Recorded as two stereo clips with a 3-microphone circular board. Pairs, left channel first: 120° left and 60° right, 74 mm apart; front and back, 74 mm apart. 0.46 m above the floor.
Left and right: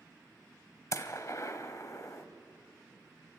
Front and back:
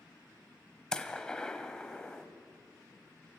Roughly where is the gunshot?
Left.